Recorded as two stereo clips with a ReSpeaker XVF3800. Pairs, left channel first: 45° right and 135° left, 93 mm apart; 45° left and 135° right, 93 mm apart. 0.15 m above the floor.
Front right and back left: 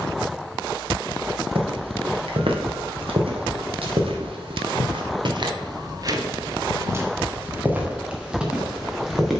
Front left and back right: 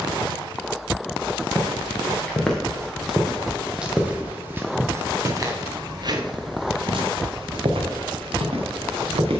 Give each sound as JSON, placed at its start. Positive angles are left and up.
{"t": 1.6, "sound": "footsteps", "azimuth_deg": 120, "distance_m": 2.5}